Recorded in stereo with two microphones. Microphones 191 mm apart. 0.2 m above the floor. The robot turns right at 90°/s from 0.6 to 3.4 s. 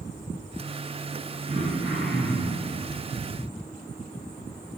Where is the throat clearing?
55° right, 2 m; by 2.7 s 55° left, 2 m.